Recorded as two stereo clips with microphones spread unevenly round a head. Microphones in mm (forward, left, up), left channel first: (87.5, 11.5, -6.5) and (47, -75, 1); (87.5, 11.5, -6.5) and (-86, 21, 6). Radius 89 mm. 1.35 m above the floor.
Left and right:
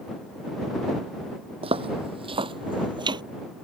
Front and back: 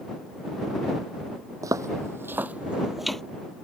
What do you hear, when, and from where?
1.6 s footsteps: 115° right; by 3.2 s 95° right